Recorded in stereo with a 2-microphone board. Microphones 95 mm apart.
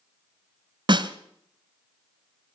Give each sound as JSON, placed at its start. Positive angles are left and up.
{"t": 0.9, "sound": "a snare drum", "side_deg": -55, "distance_m": 1.2}